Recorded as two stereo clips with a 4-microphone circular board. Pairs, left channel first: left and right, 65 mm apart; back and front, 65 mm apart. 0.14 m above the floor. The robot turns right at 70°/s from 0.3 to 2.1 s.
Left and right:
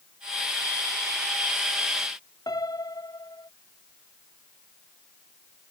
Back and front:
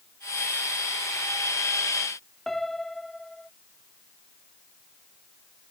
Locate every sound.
2.5 s a piano: 95° left